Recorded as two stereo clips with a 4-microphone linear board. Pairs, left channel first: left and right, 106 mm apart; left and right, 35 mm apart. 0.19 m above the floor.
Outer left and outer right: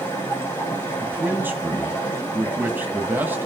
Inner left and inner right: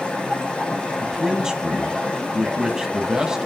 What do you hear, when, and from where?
0.0 s running water: 25° left (ahead or behind), 7 m
1.0 s a man speaking: 20° right (ahead or behind), 1.5 m